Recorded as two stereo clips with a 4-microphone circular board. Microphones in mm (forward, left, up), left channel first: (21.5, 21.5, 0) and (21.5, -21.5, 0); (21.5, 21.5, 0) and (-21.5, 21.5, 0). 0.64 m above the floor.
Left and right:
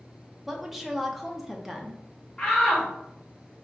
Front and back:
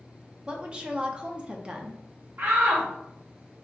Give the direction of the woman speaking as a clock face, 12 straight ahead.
6 o'clock.